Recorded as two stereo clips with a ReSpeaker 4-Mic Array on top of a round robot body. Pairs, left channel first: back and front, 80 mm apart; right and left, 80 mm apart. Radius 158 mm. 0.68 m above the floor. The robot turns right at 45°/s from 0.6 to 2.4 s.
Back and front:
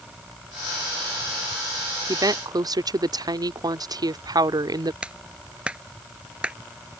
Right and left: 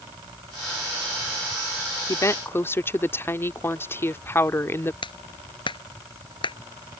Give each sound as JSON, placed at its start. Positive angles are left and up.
{"t": 2.1, "sound": "a woman speaking", "azimuth_deg": -45}
{"t": 5.0, "sound": "a clap", "azimuth_deg": -75}